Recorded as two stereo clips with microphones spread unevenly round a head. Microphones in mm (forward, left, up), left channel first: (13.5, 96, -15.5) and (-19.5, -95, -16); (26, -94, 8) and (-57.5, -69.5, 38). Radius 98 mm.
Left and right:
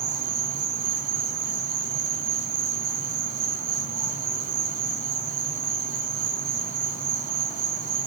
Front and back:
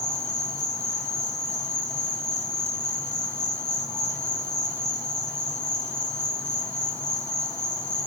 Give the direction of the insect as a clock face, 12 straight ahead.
2 o'clock.